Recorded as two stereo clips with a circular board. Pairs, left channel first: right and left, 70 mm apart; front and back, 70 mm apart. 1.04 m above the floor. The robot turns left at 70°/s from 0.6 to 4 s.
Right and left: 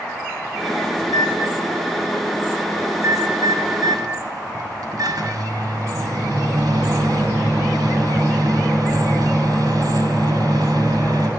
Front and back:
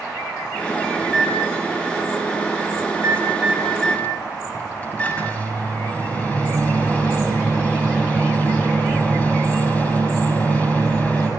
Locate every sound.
1.0 s a microwave: 80° right, 6.5 m; by 11.3 s 70° left, 6.5 m